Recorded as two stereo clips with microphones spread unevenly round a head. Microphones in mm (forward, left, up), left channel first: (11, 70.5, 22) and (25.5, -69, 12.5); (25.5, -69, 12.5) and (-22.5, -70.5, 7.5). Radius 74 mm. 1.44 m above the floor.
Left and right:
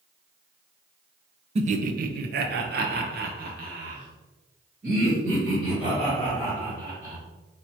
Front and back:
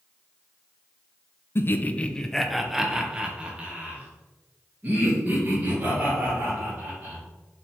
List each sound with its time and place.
1.6 s laughter: 40° right, 0.6 m; by 7.2 s 130° right, 3 m